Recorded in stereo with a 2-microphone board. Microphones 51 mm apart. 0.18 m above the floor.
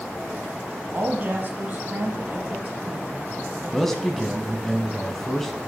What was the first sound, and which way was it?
A woman speaking, 30° right (ahead or behind).